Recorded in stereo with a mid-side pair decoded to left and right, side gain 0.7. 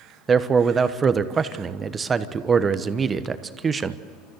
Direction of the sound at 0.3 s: 25° right.